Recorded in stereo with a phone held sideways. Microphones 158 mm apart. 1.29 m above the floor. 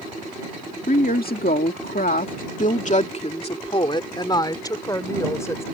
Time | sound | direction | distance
0.9 | a woman speaking | 70° left (ahead or behind) | ?